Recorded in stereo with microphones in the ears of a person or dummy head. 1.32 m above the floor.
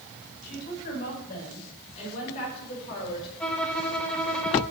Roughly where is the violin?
Centre.